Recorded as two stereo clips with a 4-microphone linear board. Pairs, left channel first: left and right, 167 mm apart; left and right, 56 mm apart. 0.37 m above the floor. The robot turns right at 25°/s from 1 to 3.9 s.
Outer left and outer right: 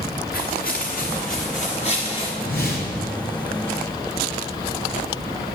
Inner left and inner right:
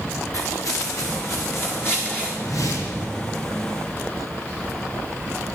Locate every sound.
0.3 s footsteps: 60° left (ahead or behind), 2.5 m; by 2.3 s 30° left (ahead or behind), 3.5 m
2.4 s a whoosh: 70° left (ahead or behind), 2.5 m; by 3.1 s 65° left (ahead or behind), 2.5 m